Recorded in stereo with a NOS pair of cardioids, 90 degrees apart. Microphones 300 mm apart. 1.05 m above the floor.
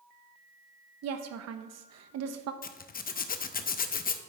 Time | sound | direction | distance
1.0 | a woman speaking | 65° right | 0.9 m
2.6 | a zipper | 30° left | 0.6 m